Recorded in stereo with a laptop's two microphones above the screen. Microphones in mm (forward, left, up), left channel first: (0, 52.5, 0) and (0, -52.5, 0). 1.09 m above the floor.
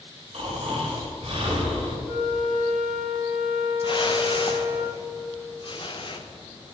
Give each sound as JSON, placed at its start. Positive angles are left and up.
{"t": 0.3, "sound": "snoring", "side_deg": -60, "distance_m": 4.0}
{"t": 2.0, "sound": "a flute", "side_deg": 70, "distance_m": 4.0}
{"t": 3.8, "sound": "a whoosh", "side_deg": 50, "distance_m": 1.0}